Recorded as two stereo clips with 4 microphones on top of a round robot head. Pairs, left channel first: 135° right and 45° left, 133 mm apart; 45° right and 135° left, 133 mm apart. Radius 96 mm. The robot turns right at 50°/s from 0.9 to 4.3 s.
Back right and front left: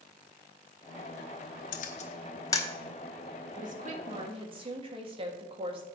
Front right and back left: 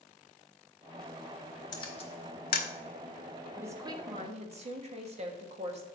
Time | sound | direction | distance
1.7 | a camera shutter | 110° right | 0.8 m
3.6 | a woman speaking | 60° left | 1.5 m